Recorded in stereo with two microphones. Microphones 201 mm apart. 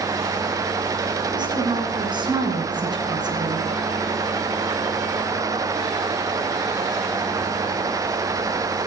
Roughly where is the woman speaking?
Right.